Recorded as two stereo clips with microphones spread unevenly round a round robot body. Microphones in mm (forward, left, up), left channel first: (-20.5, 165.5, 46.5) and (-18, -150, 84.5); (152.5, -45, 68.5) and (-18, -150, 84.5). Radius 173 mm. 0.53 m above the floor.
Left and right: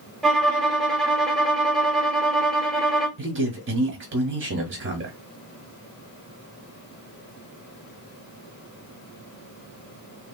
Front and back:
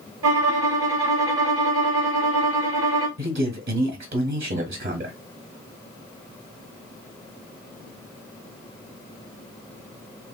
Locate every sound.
0.2 s a violin: straight behind, 0.6 m
3.2 s a man speaking: 135° right, 1.1 m